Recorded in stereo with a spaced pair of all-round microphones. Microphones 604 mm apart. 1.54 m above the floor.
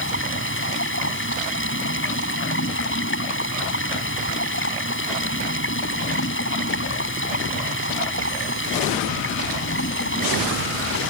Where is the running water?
20° left (ahead or behind).